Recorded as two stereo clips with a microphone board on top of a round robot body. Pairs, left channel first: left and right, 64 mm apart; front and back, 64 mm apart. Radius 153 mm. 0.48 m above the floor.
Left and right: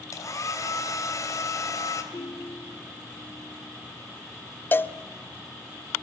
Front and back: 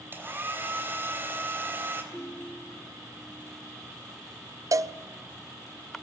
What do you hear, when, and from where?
0.1 s a hair dryer: 125° left, 3.5 m
2.1 s a ringtone: 80° left, 2 m
4.7 s a cowbell: 150° left, 0.6 m